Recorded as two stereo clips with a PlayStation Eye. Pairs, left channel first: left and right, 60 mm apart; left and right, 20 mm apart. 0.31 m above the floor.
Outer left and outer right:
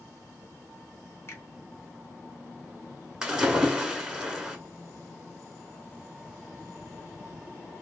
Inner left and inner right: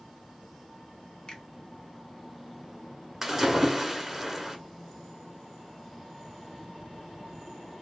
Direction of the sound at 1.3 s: 45° left (ahead or behind).